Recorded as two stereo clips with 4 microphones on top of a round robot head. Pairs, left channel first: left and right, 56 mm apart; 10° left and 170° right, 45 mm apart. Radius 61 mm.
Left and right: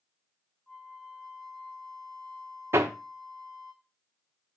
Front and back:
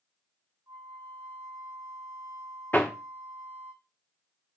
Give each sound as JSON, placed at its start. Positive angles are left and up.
{"t": 0.7, "sound": "a flute", "azimuth_deg": 175, "distance_m": 2.5}
{"t": 2.7, "sound": "hammering", "azimuth_deg": -55, "distance_m": 0.9}